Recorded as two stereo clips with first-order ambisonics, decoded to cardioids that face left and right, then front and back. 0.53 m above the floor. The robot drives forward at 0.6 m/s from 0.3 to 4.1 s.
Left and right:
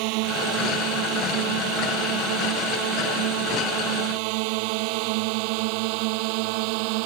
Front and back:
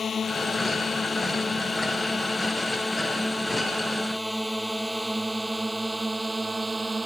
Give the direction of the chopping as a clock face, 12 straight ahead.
I don't hear chopping.